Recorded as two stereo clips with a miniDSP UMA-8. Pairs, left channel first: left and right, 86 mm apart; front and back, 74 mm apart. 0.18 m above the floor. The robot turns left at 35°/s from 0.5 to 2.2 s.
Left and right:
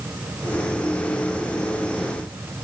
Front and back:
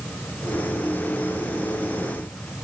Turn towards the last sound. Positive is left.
No sound to turn to.